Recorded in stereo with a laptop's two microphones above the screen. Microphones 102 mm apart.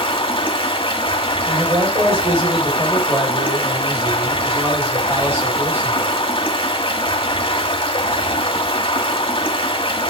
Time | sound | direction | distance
0.0 | running water | 55° left (ahead or behind) | 1.8 m
1.4 | a man speaking | 25° right (ahead or behind) | 4.5 m